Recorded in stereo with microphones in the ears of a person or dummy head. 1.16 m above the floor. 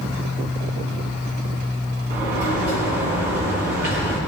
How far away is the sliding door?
About 6 m.